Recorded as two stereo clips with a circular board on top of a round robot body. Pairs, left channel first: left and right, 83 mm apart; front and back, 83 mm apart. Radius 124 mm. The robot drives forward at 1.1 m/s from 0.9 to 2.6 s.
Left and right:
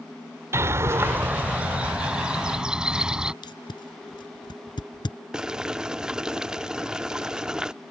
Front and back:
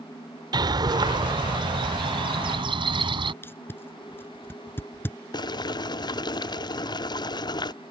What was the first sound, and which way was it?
A bird, 150° right.